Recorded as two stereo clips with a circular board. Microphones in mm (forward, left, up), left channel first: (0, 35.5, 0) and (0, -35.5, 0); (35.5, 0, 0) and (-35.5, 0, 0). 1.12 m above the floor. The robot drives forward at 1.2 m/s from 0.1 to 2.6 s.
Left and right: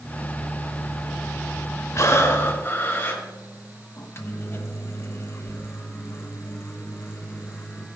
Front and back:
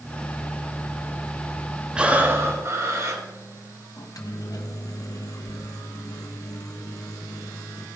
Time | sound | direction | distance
1.9 | breathing | 105° left | 1.1 m
4.0 | a microwave | 35° left | 0.9 m